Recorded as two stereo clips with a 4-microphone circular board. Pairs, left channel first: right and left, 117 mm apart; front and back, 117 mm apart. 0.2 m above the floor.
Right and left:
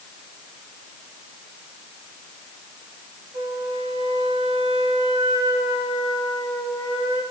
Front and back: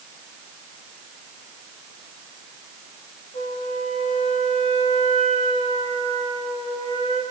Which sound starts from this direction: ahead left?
A flute, at 3.3 s.